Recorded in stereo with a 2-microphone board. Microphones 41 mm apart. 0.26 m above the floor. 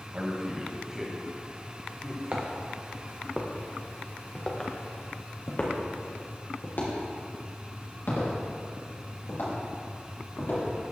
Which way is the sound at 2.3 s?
40° right (ahead or behind).